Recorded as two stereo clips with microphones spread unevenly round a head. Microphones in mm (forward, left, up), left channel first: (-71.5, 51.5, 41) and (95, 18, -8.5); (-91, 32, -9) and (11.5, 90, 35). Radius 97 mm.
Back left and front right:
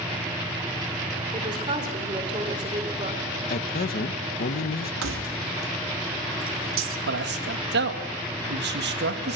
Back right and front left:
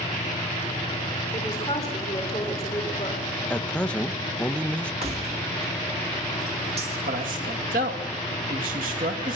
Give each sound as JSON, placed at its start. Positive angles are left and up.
{"t": 1.3, "sound": "a woman speaking", "azimuth_deg": -80, "distance_m": 4.0}
{"t": 3.5, "sound": "a man speaking", "azimuth_deg": 130, "distance_m": 1.2}
{"t": 5.0, "sound": "keys jangling", "azimuth_deg": -25, "distance_m": 1.8}
{"t": 7.1, "sound": "a man speaking", "azimuth_deg": -20, "distance_m": 2.5}